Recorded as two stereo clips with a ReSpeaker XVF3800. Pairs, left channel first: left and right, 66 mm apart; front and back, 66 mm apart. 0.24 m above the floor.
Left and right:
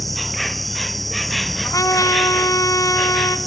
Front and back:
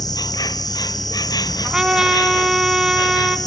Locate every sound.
0.0 s an insect: straight ahead, 0.8 m
1.6 s a trumpet: 105° left, 1.7 m